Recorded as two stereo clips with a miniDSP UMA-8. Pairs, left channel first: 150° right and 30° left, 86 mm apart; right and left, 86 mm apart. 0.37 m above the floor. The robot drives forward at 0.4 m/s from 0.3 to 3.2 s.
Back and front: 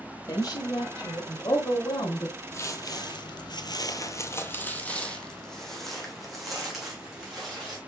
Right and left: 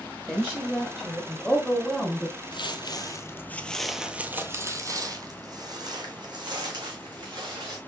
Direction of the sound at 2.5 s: 95° right.